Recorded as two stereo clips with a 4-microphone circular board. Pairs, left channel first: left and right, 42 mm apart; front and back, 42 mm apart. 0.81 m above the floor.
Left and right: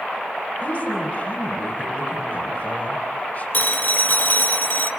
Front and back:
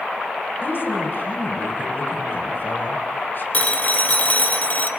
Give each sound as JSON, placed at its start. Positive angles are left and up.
{"t": 0.6, "sound": "a woman speaking", "azimuth_deg": 35, "distance_m": 4.5}
{"t": 3.5, "sound": "a phone ringing", "azimuth_deg": 50, "distance_m": 1.9}